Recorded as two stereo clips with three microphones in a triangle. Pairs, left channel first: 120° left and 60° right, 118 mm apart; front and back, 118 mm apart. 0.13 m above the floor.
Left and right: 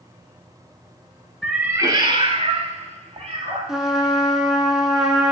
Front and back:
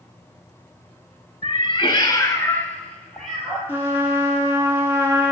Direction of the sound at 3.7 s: 140° right.